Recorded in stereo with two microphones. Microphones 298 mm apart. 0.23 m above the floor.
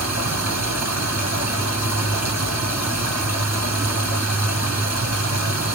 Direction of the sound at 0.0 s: 55° right (ahead or behind).